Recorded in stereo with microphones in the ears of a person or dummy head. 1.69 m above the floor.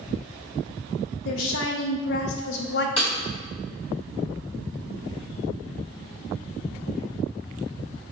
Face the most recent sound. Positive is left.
turn(degrees=35)  # may be behind; listen again after turning